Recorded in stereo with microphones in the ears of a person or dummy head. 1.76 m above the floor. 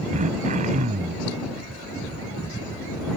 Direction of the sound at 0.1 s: 45° right (ahead or behind).